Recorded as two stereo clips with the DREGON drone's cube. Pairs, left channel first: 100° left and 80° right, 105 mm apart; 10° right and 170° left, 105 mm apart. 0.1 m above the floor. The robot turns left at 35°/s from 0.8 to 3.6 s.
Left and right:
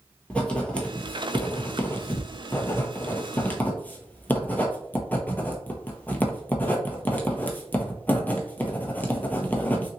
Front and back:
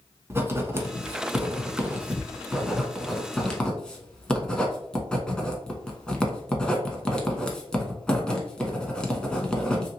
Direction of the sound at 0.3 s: 155° left.